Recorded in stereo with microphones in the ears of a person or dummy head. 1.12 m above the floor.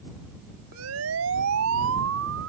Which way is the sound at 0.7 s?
75° right (ahead or behind).